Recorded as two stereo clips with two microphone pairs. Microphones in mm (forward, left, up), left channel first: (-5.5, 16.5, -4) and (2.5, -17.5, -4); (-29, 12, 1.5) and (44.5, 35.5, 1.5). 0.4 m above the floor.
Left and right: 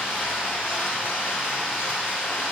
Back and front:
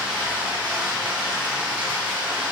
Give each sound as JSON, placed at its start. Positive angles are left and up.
{"t": 0.0, "sound": "running water", "azimuth_deg": 95, "distance_m": 4.5}